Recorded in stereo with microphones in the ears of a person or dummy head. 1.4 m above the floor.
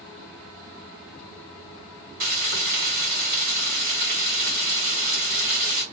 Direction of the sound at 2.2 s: 50° right (ahead or behind).